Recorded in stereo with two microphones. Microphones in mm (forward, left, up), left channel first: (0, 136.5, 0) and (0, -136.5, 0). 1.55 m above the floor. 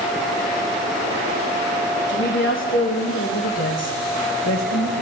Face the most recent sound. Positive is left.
turn(degrees=85)